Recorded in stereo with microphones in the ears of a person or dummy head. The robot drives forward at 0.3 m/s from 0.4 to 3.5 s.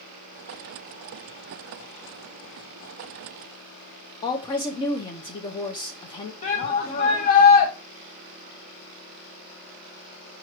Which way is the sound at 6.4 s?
35° left (ahead or behind).